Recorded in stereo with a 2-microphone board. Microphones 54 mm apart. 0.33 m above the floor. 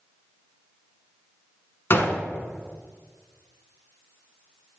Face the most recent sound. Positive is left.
turn(degrees=45)  # may be behind; listen again after turning